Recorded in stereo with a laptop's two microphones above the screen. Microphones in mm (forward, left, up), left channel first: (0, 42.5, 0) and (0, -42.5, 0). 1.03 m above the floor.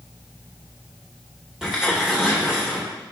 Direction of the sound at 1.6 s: 5° right (ahead or behind).